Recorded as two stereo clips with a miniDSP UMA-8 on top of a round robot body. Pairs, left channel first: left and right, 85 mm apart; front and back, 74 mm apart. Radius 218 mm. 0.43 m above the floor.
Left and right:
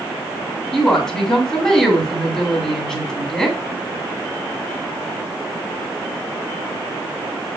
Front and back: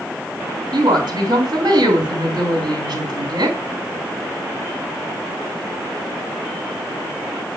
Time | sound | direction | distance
0.7 | a woman speaking | 175° left | 2.5 m